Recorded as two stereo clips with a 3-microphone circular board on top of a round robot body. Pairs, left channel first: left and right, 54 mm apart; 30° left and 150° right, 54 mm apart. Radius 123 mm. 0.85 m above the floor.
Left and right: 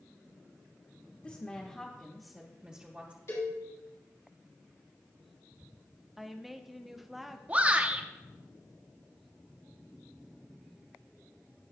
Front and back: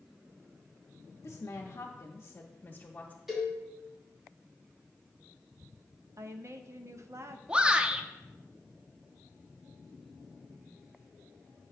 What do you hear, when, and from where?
1.2 s a woman speaking: 35° left, 1.3 m; by 3.2 s 35° right, 1.4 m
3.3 s a cowbell: 125° left, 3.5 m
6.2 s a woman speaking: 175° right, 0.8 m
7.5 s a shout: 100° right, 1.0 m